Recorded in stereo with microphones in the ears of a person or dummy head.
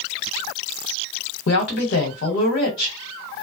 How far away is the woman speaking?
About 1.0 m.